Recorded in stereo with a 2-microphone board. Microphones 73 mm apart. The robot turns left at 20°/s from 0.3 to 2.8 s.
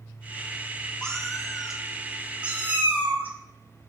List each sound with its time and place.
1.0 s a cat meowing: 10° left (ahead or behind), 0.7 m; by 3.9 s 25° right (ahead or behind), 0.7 m